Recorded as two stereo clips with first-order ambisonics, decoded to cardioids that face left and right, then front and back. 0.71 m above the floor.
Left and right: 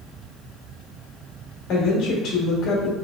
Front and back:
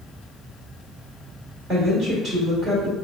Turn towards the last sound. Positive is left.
turn(degrees=120)